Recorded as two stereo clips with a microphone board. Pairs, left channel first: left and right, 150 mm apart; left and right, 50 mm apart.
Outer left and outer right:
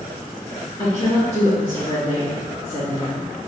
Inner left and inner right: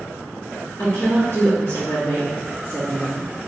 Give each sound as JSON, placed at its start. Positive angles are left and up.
{"t": 0.8, "sound": "a woman speaking", "side_deg": 40, "distance_m": 1.8}